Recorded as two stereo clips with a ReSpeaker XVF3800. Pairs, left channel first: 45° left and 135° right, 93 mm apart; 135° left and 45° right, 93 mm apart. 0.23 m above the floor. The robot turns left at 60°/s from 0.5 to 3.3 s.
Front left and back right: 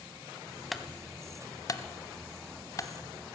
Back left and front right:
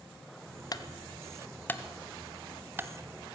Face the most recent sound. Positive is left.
turn(degrees=-20)